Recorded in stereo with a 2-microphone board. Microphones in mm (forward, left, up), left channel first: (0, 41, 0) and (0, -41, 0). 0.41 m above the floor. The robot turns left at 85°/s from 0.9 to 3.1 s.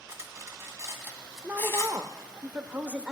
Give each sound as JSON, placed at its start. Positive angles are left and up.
{"t": 0.1, "sound": "cutlery clinking", "side_deg": -35, "distance_m": 1.8}
{"t": 1.4, "sound": "a woman speaking", "azimuth_deg": -20, "distance_m": 1.0}